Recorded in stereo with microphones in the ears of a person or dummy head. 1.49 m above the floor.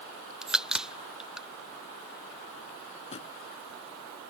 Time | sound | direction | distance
0.4 | a crack | 5° right (ahead or behind) | ?
3.1 | a drawer | 40° left (ahead or behind) | ?